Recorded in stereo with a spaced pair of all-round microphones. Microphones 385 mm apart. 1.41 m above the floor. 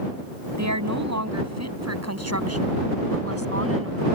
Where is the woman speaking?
45° right (ahead or behind); by 4.0 s 35° right (ahead or behind).